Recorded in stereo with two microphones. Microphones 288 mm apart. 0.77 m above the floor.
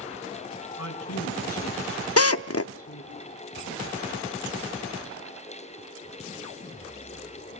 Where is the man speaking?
60° left (ahead or behind), 6.5 m; by 3.2 s 50° left (ahead or behind), 7.5 m.